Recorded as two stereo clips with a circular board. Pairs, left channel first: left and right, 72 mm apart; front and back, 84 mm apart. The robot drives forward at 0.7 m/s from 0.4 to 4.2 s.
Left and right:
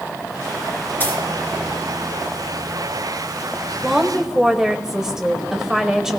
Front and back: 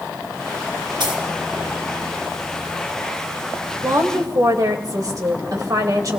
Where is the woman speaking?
170° right, 1.7 m.